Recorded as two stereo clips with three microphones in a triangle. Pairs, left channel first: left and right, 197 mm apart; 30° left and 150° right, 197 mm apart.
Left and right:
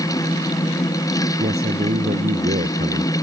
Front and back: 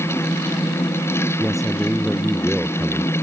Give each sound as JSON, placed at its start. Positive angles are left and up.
{"t": 1.4, "sound": "a man speaking", "azimuth_deg": -60}